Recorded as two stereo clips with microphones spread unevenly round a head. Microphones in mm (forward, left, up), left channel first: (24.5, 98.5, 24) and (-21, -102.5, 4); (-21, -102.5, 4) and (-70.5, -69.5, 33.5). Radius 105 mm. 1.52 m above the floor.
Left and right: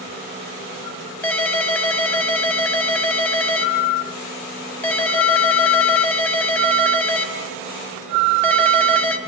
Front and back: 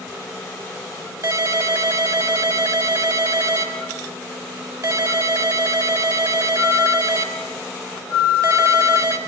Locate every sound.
1.2 s a ringtone: 160° left, 4 m